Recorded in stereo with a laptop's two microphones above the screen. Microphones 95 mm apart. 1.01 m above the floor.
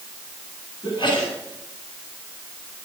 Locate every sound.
0.8 s a sneeze: 55° left (ahead or behind), 9.5 m